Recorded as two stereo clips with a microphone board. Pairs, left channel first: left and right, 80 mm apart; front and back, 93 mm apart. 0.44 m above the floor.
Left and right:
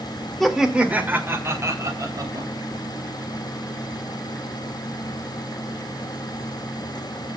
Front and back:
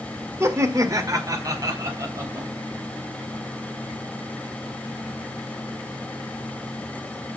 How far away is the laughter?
About 1.5 m.